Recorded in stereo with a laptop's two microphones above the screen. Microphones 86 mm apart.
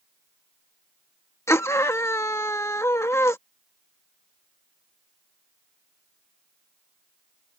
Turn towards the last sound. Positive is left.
turn(degrees=35)  # may be behind; listen again after turning